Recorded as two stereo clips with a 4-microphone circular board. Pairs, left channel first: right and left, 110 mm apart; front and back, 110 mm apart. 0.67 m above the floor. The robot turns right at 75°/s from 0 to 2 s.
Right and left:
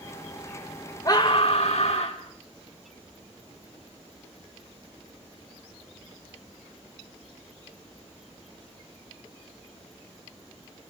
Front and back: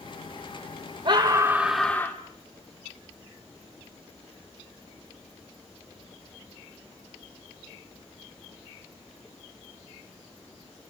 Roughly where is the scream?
Behind right.